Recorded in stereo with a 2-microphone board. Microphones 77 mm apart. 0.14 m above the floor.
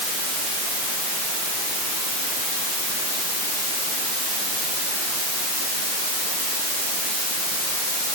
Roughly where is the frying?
No frying in this recording.